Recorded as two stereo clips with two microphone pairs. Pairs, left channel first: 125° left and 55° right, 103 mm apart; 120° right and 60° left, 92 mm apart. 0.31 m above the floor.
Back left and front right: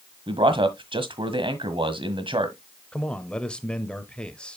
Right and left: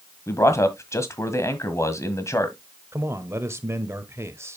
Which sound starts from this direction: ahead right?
A man speaking, at 0.3 s.